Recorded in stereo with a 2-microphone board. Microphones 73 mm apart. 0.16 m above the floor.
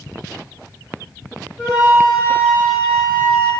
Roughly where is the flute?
Left.